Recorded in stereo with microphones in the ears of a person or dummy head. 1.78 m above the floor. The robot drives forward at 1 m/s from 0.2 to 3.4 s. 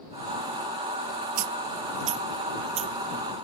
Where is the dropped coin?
45° right (ahead or behind); by 2.9 s 35° right (ahead or behind).